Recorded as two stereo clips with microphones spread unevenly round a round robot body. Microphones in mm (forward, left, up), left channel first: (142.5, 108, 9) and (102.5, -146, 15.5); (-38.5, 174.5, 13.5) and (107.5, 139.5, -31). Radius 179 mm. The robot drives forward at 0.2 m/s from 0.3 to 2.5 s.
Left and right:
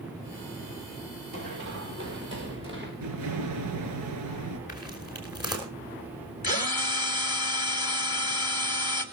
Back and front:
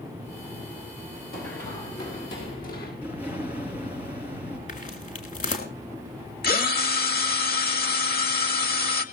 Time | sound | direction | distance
1.3 | running footsteps | 165° right | 4.5 m
3.0 | an explosion | 125° right | 5 m
4.7 | footsteps | 150° left | 4 m
6.4 | a drill | 145° left | 1.8 m